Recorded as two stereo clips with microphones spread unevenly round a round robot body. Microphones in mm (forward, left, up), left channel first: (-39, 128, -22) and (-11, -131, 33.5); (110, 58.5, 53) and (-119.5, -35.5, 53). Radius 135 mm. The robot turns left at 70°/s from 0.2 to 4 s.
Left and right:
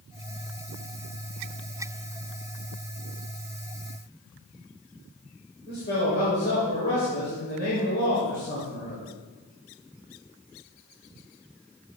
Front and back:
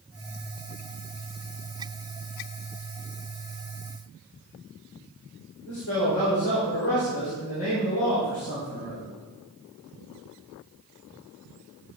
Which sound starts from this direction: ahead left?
A man speaking, at 5.7 s.